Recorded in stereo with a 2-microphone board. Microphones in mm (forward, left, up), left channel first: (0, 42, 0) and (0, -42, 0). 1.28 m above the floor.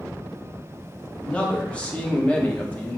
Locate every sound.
1.2 s a man speaking: 15° left (ahead or behind), 0.9 m